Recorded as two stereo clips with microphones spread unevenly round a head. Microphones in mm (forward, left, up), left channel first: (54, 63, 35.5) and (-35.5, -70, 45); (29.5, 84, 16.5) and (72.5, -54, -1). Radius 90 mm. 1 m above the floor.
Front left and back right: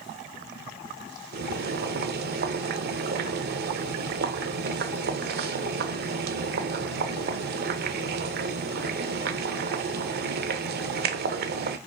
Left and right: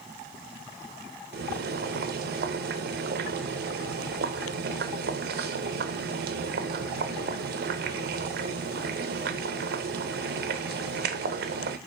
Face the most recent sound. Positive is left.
turn(degrees=-100)